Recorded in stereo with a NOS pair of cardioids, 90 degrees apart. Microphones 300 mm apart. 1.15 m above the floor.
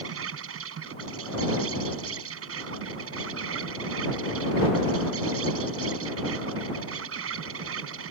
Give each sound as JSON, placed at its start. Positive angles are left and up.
{"t": 0.0, "sound": "an insect", "azimuth_deg": -55}